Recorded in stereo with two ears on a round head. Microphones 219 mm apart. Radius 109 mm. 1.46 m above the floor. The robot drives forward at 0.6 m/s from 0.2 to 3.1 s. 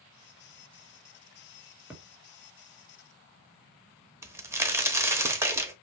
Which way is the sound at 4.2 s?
10° right (ahead or behind).